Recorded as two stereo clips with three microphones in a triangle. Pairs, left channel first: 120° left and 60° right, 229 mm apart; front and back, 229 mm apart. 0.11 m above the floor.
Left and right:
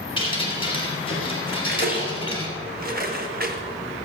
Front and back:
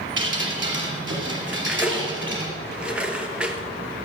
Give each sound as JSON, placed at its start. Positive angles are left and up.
{"t": 0.2, "sound": "dripping", "azimuth_deg": -175, "distance_m": 3.0}
{"t": 1.5, "sound": "cutlery clinking", "azimuth_deg": -95, "distance_m": 1.4}